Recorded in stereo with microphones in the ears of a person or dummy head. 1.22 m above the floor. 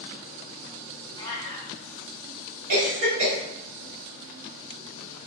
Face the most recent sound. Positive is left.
turn(degrees=-60)  # may be behind; listen again after turning